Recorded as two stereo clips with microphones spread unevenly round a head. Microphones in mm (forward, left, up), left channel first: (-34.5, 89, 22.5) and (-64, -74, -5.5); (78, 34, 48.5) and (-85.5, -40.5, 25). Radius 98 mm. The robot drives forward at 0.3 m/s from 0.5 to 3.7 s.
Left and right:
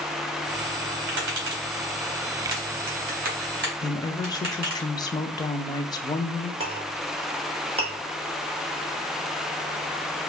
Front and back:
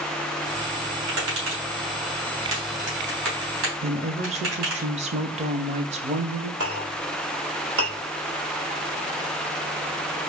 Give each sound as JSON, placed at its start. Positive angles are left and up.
{"t": 1.1, "sound": "tapping", "azimuth_deg": -120, "distance_m": 2.5}
{"t": 3.8, "sound": "a woman speaking", "azimuth_deg": 150, "distance_m": 0.7}
{"t": 6.6, "sound": "a clink", "azimuth_deg": -160, "distance_m": 2.5}